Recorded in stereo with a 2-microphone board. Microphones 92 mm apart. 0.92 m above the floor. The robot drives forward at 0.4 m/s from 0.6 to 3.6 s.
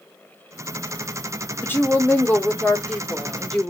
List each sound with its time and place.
1.6 s a woman speaking: 25° left (ahead or behind), 1.1 m; by 3.7 s 15° left (ahead or behind), 1.9 m